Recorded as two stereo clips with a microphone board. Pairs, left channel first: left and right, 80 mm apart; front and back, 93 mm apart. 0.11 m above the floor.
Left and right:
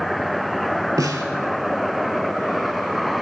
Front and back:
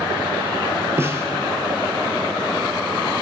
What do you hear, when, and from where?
1.0 s a snare drum: 120° right, 0.8 m